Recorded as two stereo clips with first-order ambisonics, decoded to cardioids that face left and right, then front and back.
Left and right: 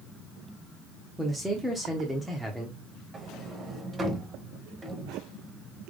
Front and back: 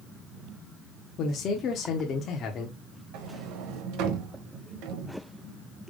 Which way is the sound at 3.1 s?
160° right.